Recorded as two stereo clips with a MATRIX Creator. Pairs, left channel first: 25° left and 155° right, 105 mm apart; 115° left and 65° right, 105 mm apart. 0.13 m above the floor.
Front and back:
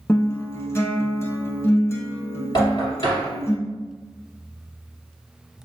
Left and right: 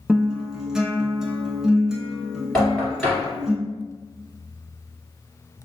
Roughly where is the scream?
I don't hear a scream.